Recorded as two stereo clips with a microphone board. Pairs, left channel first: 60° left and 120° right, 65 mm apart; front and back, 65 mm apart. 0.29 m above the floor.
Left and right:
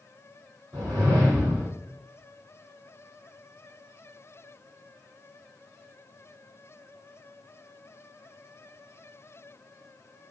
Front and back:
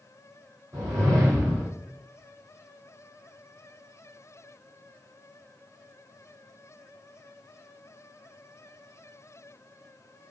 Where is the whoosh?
150° right, 2.0 m.